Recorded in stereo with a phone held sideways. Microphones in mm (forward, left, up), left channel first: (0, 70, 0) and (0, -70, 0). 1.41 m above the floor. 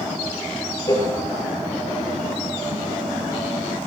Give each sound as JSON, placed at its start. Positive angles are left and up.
{"t": 0.9, "sound": "a cowbell", "side_deg": 30, "distance_m": 4.0}